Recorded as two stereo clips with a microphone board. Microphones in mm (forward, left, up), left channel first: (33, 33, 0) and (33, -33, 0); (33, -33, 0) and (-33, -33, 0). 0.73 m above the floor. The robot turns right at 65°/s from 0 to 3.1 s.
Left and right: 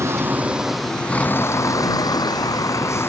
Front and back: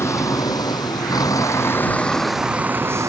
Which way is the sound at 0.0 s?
50° right.